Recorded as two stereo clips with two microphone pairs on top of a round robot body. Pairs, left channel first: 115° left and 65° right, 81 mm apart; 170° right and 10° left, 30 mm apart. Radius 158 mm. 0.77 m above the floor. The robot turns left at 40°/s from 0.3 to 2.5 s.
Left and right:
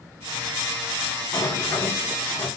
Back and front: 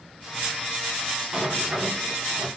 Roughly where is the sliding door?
Left.